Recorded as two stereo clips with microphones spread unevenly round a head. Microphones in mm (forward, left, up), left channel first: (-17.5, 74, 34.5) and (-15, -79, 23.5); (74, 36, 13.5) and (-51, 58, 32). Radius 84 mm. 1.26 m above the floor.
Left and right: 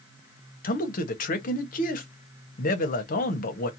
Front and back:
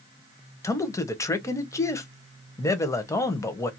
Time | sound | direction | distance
0.6 | a man speaking | 55° left | 0.8 m